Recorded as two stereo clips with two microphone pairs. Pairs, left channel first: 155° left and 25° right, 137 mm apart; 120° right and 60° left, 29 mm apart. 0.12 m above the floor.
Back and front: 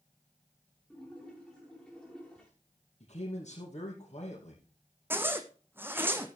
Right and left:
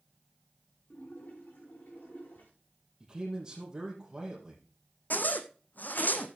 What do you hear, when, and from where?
0.9 s a splash: 120° right, 6 m
3.0 s a man speaking: 125° left, 3.5 m
5.1 s a zipper: 100° right, 1.2 m